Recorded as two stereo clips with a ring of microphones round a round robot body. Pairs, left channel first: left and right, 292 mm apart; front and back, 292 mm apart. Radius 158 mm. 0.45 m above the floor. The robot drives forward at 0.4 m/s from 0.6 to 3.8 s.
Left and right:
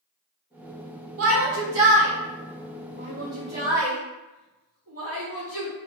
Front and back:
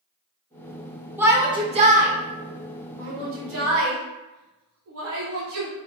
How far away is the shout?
About 1.0 m.